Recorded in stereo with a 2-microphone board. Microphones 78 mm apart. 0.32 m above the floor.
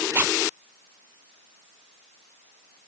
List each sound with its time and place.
0.1 s a zipper: 30° right (ahead or behind)